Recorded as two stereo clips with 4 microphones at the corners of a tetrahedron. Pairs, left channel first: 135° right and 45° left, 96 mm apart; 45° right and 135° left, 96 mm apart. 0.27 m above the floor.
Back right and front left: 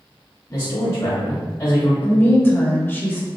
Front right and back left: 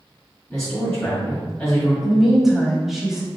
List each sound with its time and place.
0.5 s a man speaking: 110° right, 1.3 m
2.0 s a woman speaking: 145° right, 0.9 m